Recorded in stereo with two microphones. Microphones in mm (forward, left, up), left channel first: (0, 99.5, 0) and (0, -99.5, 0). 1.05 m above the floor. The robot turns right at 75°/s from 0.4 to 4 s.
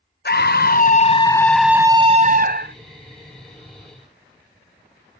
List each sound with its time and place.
0.2 s a scream: 90° left, 0.9 m; by 2.8 s 95° right, 0.9 m